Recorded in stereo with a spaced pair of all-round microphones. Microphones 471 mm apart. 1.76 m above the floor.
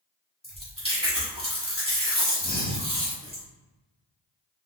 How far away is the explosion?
I don't hear an explosion.